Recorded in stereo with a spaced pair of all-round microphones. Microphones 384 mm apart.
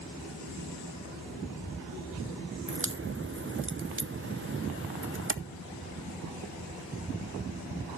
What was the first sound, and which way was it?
A crack, 35° right (ahead or behind).